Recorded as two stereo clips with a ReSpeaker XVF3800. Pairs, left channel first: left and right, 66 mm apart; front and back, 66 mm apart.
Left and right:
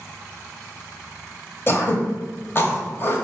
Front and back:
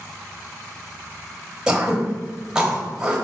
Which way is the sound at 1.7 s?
110° left.